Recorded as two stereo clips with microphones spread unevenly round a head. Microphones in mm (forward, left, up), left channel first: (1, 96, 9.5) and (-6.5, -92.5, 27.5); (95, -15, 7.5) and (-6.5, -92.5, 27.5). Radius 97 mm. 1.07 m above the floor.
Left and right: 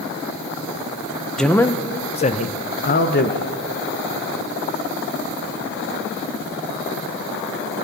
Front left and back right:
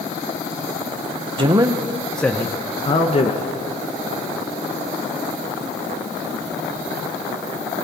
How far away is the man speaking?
About 0.9 m.